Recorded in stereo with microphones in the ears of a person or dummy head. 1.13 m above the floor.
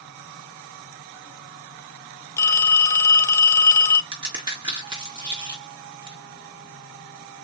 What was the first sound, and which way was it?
A phone ringing, 20° left (ahead or behind).